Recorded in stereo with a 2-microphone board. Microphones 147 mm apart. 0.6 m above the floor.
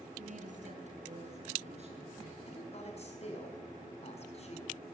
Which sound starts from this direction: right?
A woman speaking, at 0.2 s.